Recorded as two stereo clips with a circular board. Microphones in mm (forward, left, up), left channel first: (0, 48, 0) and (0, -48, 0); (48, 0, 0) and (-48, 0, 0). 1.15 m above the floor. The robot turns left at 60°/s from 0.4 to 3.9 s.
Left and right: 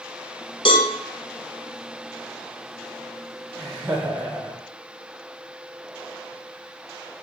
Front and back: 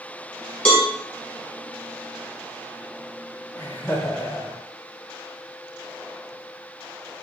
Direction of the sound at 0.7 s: 70° left.